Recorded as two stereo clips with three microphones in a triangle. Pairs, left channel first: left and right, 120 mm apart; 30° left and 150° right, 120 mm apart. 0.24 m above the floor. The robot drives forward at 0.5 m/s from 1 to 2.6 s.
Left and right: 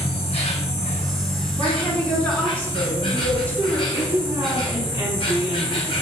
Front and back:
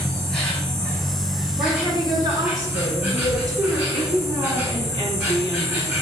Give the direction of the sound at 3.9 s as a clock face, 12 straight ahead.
5 o'clock.